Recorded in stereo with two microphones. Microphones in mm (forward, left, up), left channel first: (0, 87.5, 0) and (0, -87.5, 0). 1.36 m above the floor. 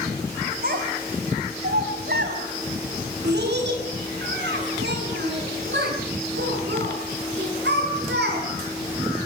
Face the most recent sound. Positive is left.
turn(degrees=-85)